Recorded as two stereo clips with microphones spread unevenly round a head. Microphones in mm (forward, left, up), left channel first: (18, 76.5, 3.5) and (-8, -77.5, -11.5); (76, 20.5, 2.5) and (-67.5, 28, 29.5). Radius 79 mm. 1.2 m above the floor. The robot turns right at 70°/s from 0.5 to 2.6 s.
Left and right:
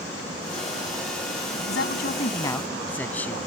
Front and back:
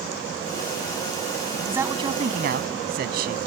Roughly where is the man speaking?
Left.